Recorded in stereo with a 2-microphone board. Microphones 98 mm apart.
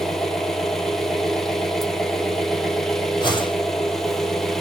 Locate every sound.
0.0 s an engine running: 5° left (ahead or behind), 2.5 m
3.2 s a whoosh: 50° left (ahead or behind), 3.5 m